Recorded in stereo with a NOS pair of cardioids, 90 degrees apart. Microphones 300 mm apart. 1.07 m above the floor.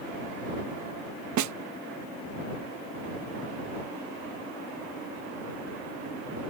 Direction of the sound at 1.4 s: 70° right.